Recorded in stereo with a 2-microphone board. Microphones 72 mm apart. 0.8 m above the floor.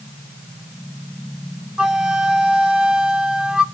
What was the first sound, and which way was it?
A flute, 10° right (ahead or behind).